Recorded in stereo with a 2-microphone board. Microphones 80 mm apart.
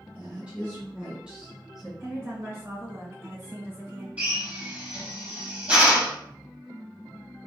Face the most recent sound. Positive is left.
turn(degrees=-20)  # may be behind; listen again after turning